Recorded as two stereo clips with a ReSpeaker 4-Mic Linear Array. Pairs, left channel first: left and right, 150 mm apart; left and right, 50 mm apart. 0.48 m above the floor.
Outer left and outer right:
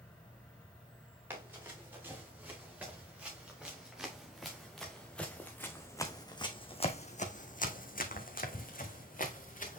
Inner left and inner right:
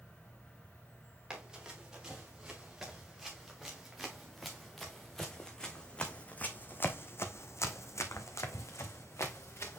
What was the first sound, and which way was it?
An insect, 35° left (ahead or behind).